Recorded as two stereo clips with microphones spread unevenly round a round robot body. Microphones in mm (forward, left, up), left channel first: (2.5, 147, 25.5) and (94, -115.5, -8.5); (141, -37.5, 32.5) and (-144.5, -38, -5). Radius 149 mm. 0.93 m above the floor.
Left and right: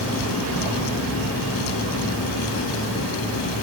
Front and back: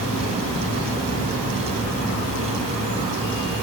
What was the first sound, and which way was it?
Only background noise.